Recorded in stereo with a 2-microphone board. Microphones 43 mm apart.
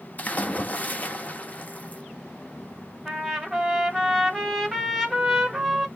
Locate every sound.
0.2 s a splash: 35° left (ahead or behind), 0.6 m
3.0 s a trumpet: centre (ahead or behind), 1.9 m